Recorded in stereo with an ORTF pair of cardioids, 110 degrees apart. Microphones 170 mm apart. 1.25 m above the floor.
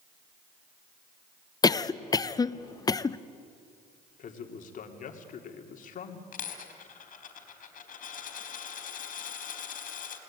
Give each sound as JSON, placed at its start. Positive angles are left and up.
{"t": 1.6, "sound": "a cough", "azimuth_deg": 20, "distance_m": 0.9}
{"t": 4.2, "sound": "a man speaking", "azimuth_deg": 50, "distance_m": 3.5}
{"t": 6.3, "sound": "a dropped coin", "azimuth_deg": 55, "distance_m": 4.0}